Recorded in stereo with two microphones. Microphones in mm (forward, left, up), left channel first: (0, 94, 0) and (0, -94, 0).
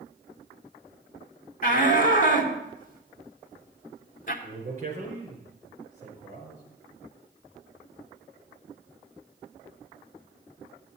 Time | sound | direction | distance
1.6 | a shout | 45° left (ahead or behind) | 2.5 m
4.4 | a man speaking | 40° right (ahead or behind) | 5 m